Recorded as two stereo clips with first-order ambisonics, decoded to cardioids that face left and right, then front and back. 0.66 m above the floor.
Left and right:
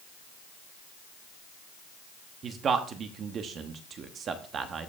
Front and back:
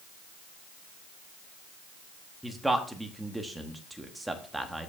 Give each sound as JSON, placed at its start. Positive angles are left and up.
{"t": 2.4, "sound": "a man speaking", "azimuth_deg": -100, "distance_m": 1.1}